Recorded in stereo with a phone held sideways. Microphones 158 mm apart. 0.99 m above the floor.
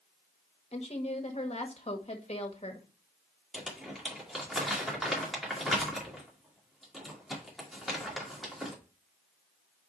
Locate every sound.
0.7 s a woman speaking: 40° left (ahead or behind), 1.1 m
3.5 s crumpling: centre (ahead or behind), 2 m